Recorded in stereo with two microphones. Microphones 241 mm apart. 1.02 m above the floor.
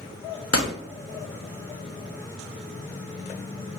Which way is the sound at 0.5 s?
75° left (ahead or behind).